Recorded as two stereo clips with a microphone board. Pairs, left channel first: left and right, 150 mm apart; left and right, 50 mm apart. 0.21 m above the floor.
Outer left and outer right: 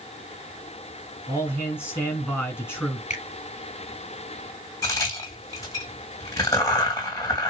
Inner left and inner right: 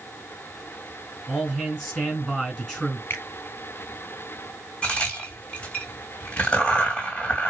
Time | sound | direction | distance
1.3 | a man speaking | 15° left (ahead or behind) | 3 m
3.1 | a finger snap | 50° left (ahead or behind) | 3 m
4.8 | a crack | 25° left (ahead or behind) | 2 m